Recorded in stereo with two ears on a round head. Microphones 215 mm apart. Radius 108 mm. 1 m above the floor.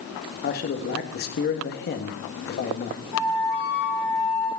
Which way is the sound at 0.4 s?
40° left (ahead or behind).